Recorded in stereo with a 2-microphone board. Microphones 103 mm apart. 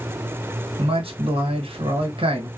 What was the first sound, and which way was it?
A man speaking, 65° right (ahead or behind).